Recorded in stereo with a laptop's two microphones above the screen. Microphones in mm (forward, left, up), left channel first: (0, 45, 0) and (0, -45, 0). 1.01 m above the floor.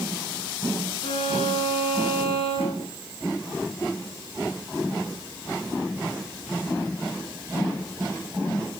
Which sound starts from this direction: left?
A violin, at 1.0 s.